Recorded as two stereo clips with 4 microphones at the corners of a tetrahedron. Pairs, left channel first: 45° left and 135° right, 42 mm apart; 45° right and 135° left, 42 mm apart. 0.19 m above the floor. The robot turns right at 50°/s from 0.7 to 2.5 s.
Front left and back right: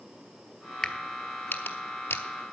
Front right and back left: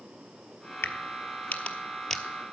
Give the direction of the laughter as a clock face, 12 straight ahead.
I don't hear laughter.